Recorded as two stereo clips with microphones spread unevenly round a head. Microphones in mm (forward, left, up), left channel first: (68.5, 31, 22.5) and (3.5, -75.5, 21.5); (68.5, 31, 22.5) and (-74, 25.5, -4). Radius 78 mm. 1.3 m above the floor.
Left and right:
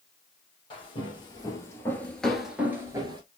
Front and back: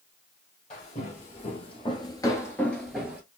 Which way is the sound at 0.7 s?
20° left.